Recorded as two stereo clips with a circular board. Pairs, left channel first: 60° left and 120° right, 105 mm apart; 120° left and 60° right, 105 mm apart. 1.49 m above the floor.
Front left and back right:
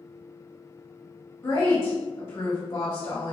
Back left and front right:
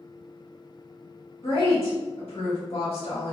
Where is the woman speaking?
110° left, 1.3 m.